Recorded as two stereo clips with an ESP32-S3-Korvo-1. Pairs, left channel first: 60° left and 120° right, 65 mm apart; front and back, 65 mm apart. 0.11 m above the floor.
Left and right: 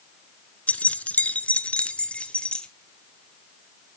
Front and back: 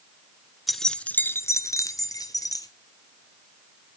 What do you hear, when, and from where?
0.7 s keys jangling: 95° left, 0.8 m; by 2.7 s 15° right, 1.7 m